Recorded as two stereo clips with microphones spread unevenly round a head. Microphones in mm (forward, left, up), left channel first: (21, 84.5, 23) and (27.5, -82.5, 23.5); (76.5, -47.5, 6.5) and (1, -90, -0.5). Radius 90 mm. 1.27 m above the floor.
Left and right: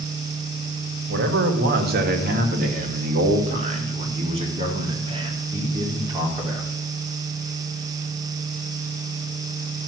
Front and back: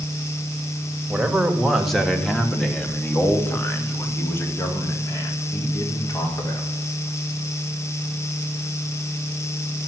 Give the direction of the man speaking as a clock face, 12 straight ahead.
2 o'clock.